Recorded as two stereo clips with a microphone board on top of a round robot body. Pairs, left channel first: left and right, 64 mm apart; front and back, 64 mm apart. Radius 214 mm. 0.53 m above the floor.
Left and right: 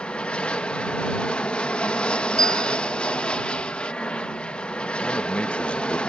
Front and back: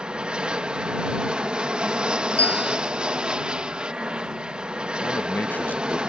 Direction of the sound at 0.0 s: 130° left.